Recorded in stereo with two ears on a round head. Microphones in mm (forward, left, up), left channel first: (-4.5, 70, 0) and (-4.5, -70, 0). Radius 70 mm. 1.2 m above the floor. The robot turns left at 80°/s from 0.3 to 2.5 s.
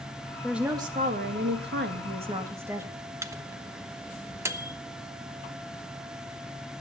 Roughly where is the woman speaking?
Ahead.